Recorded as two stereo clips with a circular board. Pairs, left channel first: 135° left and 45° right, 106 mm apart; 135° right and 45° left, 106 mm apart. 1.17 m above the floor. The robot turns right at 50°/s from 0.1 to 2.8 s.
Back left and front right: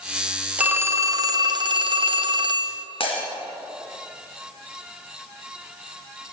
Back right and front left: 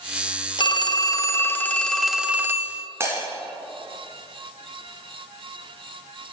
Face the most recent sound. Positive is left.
turn(degrees=110)